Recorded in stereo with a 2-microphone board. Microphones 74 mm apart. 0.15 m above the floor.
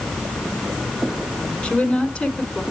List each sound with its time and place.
1.6 s a woman speaking: 15° left (ahead or behind), 1.1 m